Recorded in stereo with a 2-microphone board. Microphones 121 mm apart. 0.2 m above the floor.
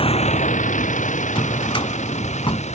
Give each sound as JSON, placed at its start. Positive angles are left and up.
{"t": 0.0, "sound": "a vehicle", "side_deg": 50}
{"t": 1.4, "sound": "a drawer", "side_deg": 45}